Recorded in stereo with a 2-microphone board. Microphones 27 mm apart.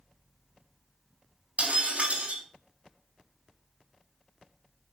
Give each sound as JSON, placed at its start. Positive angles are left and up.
{"t": 1.6, "sound": "breaking glass", "side_deg": -65, "distance_m": 4.0}